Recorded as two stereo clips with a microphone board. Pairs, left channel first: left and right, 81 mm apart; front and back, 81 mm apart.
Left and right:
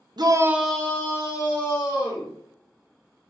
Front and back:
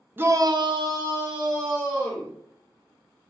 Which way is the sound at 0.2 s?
115° right.